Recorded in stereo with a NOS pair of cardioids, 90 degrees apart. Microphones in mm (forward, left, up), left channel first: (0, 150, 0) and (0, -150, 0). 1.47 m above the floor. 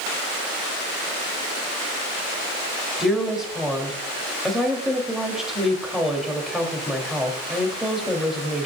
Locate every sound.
3.0 s a woman speaking: straight ahead, 3.5 m